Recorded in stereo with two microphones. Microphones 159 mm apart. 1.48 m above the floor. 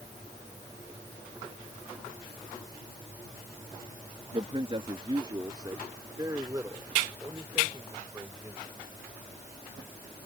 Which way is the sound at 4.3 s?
40° right (ahead or behind).